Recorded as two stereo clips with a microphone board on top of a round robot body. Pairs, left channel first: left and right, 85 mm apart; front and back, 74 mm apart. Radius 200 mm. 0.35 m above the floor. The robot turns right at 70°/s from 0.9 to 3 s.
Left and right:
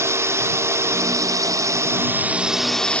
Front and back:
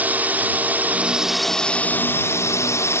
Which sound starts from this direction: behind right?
A drone, at 0.0 s.